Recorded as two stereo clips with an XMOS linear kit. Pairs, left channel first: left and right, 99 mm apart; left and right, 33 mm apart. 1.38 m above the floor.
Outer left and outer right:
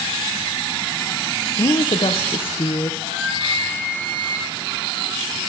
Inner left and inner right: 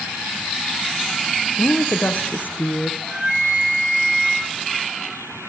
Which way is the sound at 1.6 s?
60° left (ahead or behind).